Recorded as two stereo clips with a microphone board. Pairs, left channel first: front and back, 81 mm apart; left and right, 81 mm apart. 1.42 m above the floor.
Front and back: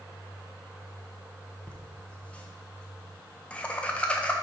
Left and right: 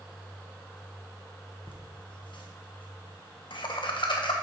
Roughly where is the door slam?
No door slam in this recording.